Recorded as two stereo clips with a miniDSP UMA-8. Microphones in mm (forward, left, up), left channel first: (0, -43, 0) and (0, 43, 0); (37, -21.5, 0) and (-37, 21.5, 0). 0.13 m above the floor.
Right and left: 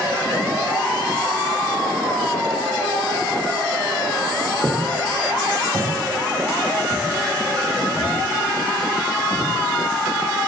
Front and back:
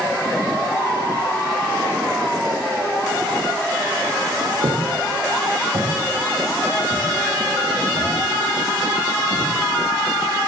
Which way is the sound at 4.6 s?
150° left.